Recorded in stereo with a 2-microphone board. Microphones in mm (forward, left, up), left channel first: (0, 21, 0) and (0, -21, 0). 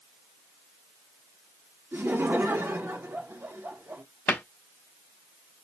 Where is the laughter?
60° right (ahead or behind), 1.0 m.